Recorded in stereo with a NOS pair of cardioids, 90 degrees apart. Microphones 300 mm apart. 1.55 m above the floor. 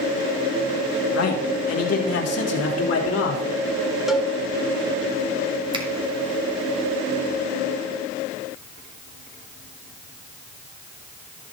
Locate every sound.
1.1 s a man speaking: 60° left, 2.5 m; by 3.4 s 55° left, 4 m
4.1 s a cowbell: straight ahead, 2 m
5.7 s a finger snap: 15° right, 2.5 m